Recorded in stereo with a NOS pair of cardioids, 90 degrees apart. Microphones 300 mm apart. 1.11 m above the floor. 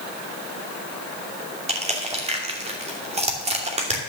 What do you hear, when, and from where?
1.7 s crushing: 20° right, 2.5 m